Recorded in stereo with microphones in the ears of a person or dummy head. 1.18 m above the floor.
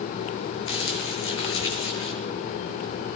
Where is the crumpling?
85° left, 9 m.